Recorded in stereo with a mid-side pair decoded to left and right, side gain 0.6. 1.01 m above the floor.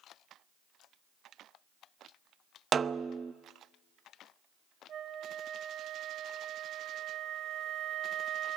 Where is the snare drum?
35° right, 0.7 m.